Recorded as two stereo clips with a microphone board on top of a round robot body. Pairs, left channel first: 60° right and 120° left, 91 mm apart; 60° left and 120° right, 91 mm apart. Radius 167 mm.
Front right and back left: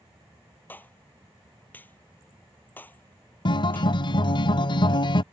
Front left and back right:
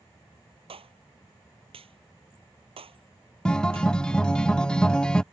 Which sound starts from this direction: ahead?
A guitar, at 3.5 s.